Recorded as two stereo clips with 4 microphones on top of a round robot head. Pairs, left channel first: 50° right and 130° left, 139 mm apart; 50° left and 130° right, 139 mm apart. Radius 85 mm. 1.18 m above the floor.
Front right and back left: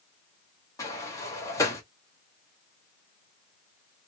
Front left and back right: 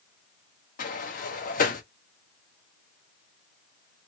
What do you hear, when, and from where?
0.8 s a sliding door: 20° left, 0.9 m